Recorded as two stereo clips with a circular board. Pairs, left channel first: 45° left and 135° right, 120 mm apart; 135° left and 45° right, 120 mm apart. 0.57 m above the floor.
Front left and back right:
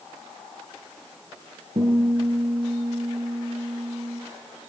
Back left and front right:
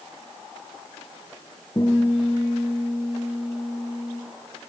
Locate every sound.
1.8 s a guitar: 170° right, 6 m